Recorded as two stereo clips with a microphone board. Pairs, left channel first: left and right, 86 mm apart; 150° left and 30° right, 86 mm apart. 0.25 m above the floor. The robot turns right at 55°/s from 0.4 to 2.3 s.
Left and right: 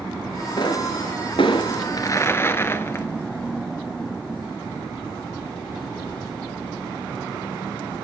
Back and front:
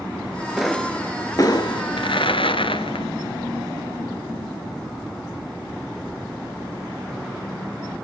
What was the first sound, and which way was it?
A pop, 55° left.